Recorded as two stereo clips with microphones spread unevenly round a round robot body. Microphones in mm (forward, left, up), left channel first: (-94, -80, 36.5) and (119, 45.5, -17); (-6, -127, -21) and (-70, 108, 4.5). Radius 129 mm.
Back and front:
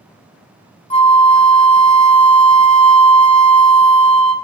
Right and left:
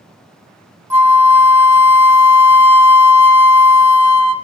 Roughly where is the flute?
Behind.